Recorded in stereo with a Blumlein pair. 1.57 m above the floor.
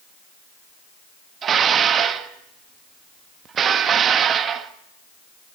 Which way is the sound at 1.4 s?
25° right.